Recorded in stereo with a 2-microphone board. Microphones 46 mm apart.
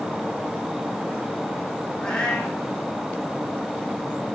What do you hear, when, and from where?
2.0 s a cat meowing: 15° left (ahead or behind), 5.5 m